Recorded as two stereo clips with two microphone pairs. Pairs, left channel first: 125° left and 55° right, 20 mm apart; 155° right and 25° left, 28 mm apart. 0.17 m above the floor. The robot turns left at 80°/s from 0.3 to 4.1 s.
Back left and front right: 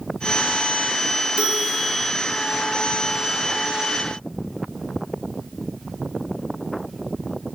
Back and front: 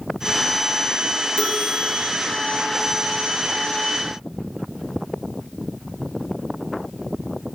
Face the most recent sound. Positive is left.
turn(degrees=60)